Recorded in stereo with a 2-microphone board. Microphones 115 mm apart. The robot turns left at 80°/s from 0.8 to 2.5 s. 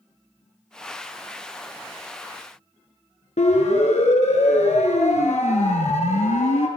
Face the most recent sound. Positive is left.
turn(degrees=80)